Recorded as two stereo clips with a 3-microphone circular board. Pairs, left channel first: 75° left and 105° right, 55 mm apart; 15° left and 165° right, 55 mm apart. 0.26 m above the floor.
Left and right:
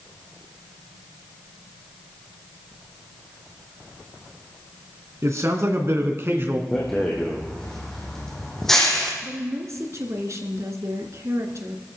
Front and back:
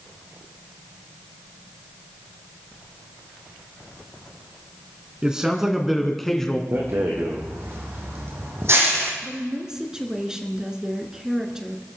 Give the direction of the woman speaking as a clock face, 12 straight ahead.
3 o'clock.